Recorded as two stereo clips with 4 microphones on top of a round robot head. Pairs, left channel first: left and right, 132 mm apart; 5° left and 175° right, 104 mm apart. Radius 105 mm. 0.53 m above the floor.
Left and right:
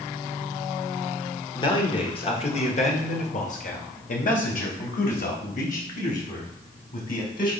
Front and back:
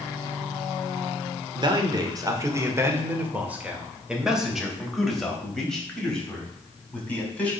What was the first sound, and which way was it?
A man speaking, 150° left.